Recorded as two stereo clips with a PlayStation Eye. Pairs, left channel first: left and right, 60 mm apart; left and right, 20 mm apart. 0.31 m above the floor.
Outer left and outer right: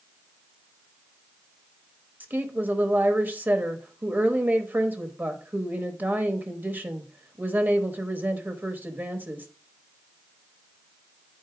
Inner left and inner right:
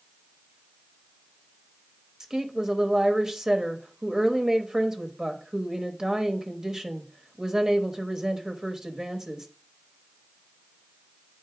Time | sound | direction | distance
2.2 | a woman speaking | 30° right (ahead or behind) | 1.0 m